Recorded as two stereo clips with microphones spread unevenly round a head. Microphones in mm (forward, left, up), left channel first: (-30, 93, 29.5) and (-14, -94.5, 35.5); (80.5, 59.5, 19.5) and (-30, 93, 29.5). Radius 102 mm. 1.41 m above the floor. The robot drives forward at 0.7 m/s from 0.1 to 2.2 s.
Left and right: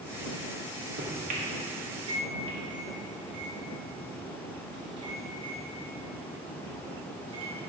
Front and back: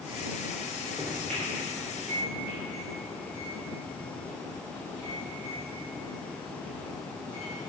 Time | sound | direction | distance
1.0 | a microwave | 125° right | 1.2 m